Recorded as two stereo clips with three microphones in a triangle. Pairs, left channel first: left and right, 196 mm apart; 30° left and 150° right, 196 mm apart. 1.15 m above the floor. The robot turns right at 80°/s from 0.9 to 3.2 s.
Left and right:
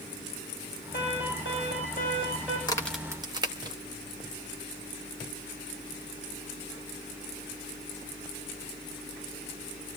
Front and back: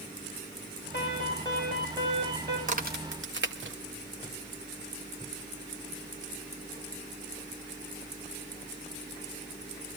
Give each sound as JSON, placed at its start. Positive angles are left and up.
{"t": 0.9, "sound": "an alarm", "azimuth_deg": 55, "distance_m": 10.0}
{"t": 2.7, "sound": "a crack", "azimuth_deg": 160, "distance_m": 1.9}